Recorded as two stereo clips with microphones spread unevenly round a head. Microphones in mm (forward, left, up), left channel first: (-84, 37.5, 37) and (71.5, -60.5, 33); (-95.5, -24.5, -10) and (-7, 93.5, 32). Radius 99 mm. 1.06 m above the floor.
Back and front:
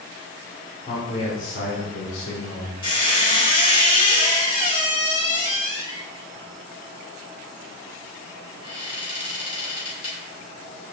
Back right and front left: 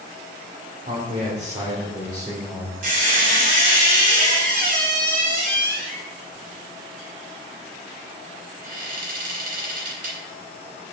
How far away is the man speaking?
About 3 m.